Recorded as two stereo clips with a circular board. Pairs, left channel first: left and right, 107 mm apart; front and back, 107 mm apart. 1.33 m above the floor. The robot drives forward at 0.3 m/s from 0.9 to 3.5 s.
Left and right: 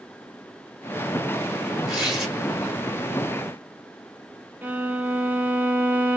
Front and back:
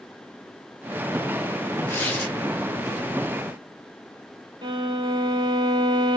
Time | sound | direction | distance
1.9 | tearing paper | 15° right | 1.1 m
4.6 | a violin | 160° right | 0.5 m